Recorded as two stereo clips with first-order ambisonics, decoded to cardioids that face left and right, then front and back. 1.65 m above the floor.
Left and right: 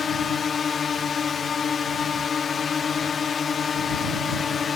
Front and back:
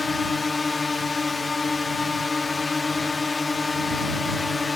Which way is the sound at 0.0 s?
55° left.